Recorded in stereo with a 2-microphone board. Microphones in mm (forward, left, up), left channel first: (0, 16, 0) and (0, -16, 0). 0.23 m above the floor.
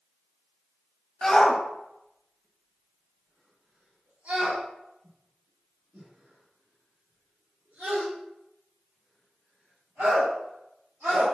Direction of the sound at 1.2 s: 20° left (ahead or behind).